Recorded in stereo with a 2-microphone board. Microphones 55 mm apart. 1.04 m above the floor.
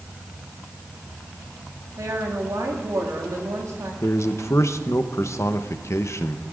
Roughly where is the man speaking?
Left.